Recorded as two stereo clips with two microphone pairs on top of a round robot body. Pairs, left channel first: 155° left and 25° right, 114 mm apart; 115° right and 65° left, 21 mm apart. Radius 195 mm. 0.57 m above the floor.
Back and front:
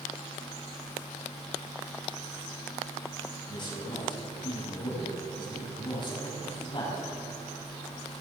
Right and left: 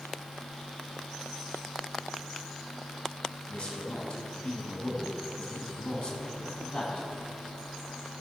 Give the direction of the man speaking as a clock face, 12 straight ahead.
5 o'clock.